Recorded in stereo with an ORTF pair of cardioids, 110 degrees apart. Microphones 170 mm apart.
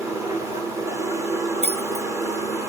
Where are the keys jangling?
45° right, 2 m.